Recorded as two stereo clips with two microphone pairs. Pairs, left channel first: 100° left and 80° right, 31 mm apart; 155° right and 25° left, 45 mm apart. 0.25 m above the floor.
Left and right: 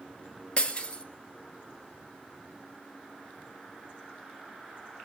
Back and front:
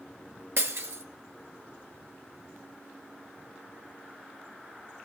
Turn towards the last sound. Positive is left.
turn(degrees=40)